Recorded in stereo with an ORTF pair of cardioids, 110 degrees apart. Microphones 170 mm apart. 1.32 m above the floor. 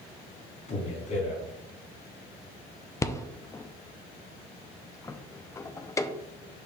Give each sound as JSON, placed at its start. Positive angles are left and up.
{"t": 0.7, "sound": "a man speaking", "azimuth_deg": 45, "distance_m": 3.5}
{"t": 3.0, "sound": "a rattle", "azimuth_deg": 20, "distance_m": 0.5}